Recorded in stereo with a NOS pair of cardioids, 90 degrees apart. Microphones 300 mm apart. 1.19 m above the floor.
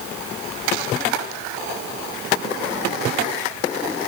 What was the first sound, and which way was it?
Only background noise.